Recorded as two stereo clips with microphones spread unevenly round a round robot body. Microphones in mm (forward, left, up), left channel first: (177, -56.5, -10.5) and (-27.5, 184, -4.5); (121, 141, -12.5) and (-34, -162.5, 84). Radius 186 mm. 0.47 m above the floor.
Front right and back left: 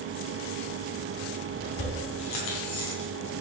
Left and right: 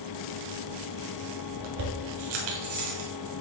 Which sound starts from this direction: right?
Keys jangling, at 1.6 s.